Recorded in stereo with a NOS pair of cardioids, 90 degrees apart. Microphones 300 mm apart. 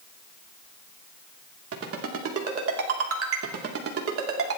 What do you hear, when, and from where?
1.7 s a ringtone: 50° right, 3 m